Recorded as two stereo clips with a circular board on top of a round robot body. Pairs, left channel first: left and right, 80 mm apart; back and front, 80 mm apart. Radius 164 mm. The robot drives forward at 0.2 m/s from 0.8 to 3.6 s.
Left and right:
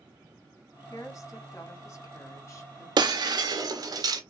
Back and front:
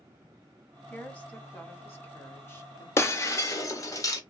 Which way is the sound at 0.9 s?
115° left.